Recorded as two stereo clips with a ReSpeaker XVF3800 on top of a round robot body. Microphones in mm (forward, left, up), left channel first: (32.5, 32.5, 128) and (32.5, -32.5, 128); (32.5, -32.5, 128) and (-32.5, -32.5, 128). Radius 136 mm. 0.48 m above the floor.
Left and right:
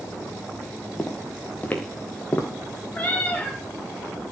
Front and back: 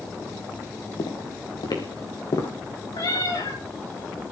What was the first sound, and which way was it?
Footsteps, 15° left.